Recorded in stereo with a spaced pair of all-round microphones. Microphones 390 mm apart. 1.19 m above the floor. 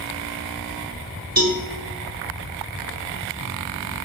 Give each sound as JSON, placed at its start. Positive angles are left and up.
{"t": 1.4, "sound": "a cowbell", "side_deg": -60, "distance_m": 1.2}